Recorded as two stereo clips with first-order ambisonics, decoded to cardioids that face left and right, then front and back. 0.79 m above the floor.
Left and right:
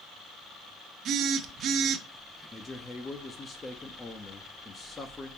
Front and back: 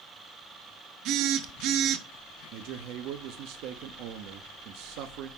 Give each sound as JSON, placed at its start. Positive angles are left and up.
{"t": 1.1, "sound": "a phone buzzing", "azimuth_deg": -140, "distance_m": 0.7}
{"t": 2.5, "sound": "a man speaking", "azimuth_deg": 165, "distance_m": 0.7}